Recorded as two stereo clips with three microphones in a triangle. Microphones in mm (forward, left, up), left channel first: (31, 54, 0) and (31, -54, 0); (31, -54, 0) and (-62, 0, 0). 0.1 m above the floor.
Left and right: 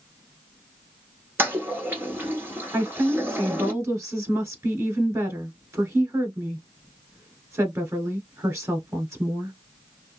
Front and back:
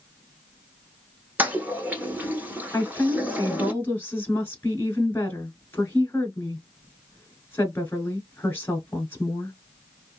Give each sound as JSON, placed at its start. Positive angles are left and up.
{"t": 1.4, "sound": "a toilet flushing", "azimuth_deg": -145, "distance_m": 1.1}
{"t": 2.7, "sound": "a woman speaking", "azimuth_deg": -70, "distance_m": 1.1}